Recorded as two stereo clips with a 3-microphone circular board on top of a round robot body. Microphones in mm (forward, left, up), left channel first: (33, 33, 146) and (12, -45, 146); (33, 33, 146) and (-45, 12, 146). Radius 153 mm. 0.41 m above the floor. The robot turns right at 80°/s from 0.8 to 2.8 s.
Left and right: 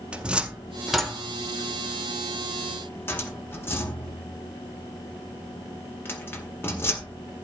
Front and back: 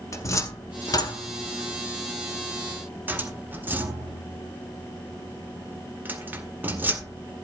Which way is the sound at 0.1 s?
30° right.